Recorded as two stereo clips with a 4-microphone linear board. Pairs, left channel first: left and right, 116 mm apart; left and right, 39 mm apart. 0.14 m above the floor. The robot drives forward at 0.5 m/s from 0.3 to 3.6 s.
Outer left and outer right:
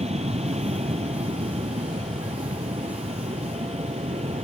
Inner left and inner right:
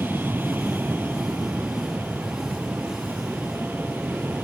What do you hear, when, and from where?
0.0 s an aircraft: 65° right (ahead or behind); by 4.5 s 70° right (ahead or behind)